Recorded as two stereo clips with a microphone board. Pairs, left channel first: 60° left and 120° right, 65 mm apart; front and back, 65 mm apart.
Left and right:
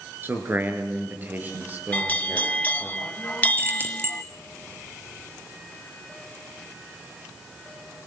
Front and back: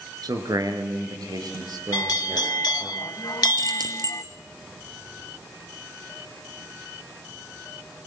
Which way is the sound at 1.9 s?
5° right.